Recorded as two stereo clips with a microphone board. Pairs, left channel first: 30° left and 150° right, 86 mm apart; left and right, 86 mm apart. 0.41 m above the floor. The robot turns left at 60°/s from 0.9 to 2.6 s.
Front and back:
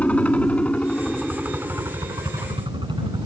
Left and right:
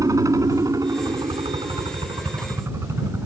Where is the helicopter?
45° right; by 3.3 s 145° right.